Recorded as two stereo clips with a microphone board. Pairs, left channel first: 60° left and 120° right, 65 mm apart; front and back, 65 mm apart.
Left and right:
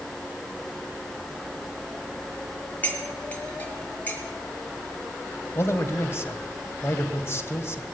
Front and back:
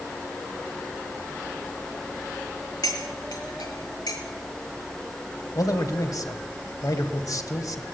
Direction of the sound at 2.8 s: 5° right.